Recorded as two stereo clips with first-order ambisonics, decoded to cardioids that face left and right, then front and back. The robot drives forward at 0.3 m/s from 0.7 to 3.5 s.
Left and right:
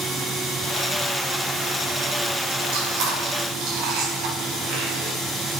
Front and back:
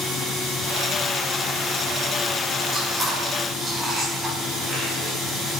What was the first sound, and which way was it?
Chewing, 95° right.